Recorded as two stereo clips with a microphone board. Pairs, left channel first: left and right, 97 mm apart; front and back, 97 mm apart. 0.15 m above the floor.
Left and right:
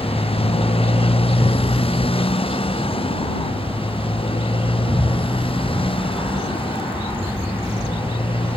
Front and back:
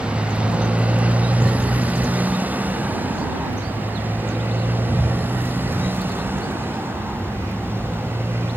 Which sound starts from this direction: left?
A motorcycle, at 0.0 s.